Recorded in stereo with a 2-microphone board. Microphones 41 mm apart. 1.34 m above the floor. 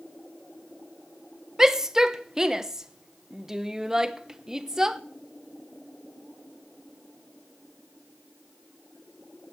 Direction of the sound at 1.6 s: 15° right (ahead or behind).